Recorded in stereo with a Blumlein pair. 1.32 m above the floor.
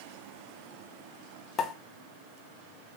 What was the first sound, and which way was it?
A pop, 25° left.